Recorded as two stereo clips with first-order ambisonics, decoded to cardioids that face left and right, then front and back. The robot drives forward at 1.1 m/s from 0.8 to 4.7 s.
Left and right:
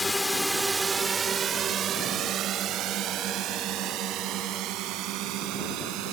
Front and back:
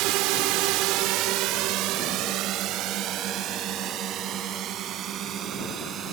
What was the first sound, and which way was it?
A drone, 170° left.